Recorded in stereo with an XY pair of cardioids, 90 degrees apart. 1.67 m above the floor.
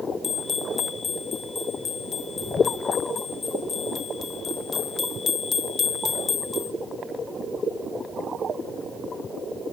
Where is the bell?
50° left, 1.1 m.